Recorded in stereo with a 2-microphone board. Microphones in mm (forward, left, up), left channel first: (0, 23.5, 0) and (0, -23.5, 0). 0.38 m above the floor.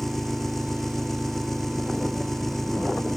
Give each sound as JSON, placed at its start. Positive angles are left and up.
{"t": 0.0, "sound": "an engine running", "side_deg": 5}